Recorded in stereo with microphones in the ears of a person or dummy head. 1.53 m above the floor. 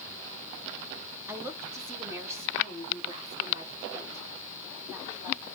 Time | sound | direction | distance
1.3 | a woman speaking | 10° right (ahead or behind) | 1.6 m